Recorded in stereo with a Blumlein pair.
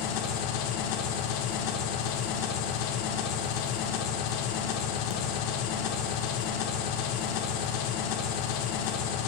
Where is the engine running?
45° left, 1.6 m.